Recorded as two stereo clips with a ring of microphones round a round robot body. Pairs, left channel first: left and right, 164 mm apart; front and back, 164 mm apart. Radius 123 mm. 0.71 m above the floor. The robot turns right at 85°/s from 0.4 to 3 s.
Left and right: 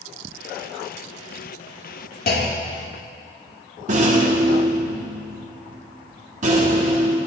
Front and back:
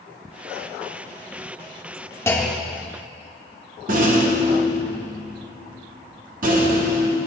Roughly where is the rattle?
Behind right.